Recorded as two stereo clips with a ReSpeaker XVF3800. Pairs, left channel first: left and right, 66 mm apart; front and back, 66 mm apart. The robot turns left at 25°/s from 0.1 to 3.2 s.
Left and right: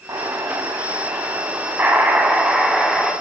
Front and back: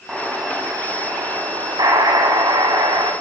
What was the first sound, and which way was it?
An explosion, 105° right.